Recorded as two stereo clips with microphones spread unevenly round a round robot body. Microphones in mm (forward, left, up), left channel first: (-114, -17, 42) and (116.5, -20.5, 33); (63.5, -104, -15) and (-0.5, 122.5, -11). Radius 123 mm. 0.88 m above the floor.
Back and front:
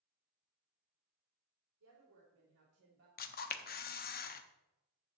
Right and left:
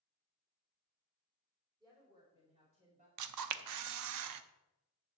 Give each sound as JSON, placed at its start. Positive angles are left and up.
{"t": 1.8, "sound": "a woman speaking", "azimuth_deg": 30, "distance_m": 3.0}
{"t": 3.2, "sound": "a camera shutter", "azimuth_deg": 125, "distance_m": 0.7}